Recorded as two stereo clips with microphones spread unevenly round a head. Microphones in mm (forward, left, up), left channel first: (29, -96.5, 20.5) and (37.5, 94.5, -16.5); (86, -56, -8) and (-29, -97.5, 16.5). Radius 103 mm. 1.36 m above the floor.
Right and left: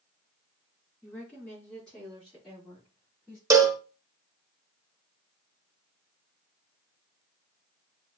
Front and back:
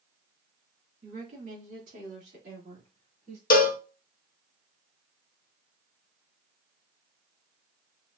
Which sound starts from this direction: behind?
A woman speaking, at 1.0 s.